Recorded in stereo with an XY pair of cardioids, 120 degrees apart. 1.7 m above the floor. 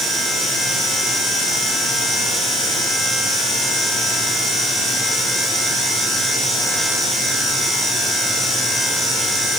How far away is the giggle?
No giggle in this recording.